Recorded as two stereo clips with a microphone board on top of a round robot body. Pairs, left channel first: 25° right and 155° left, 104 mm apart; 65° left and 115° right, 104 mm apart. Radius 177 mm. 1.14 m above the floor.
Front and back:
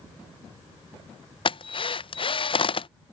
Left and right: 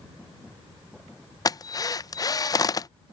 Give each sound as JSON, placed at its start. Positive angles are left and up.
{"t": 1.4, "sound": "a drill", "azimuth_deg": 10}